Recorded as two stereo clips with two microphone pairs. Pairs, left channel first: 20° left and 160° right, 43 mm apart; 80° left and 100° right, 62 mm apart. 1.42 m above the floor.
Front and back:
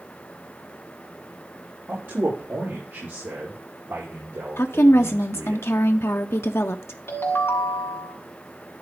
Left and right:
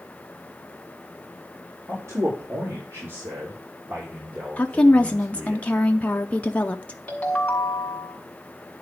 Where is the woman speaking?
15° left, 0.5 m.